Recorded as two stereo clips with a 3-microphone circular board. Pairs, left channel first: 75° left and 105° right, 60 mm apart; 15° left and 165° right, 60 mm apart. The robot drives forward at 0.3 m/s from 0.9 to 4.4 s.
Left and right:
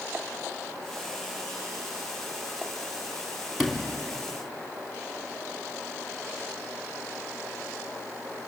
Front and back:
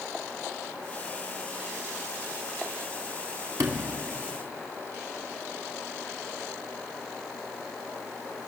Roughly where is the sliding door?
Behind.